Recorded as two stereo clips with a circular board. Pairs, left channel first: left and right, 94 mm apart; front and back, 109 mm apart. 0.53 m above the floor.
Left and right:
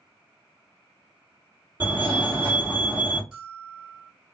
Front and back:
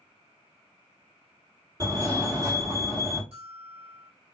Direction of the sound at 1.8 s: 145° right.